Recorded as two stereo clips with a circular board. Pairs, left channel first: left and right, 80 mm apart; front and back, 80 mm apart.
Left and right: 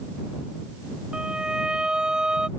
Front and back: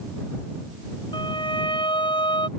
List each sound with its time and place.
1.1 s a violin: 10° right